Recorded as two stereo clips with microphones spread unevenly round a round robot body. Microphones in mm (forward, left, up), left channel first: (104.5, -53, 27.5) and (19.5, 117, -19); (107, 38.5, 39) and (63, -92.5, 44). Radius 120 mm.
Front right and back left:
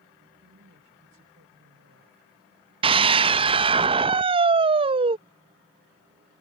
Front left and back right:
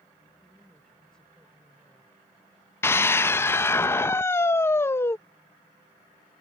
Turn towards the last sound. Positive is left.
turn(degrees=135)